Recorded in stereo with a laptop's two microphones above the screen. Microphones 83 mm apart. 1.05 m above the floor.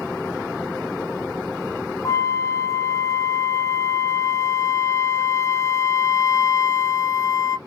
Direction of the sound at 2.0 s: 35° left (ahead or behind).